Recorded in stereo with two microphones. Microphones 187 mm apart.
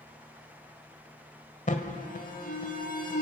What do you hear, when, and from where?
1.7 s an alarm: 45° left (ahead or behind), 1.8 m